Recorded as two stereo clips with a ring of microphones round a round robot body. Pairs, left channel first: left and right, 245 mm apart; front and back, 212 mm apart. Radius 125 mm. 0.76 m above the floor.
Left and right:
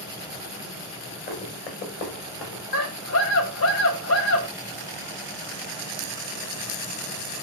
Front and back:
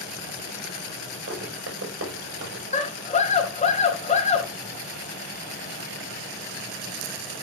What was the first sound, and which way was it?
Running footsteps, 145° left.